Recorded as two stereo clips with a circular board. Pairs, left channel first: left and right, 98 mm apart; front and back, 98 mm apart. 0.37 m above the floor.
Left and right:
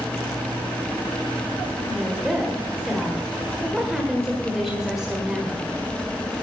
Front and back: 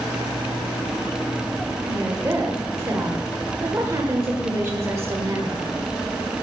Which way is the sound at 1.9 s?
170° right.